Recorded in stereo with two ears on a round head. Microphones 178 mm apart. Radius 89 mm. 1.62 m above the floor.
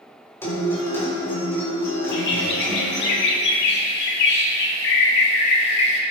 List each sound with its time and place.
0.4 s a guitar: 15° left (ahead or behind), 5 m
2.1 s a bird: 65° left (ahead or behind), 2.5 m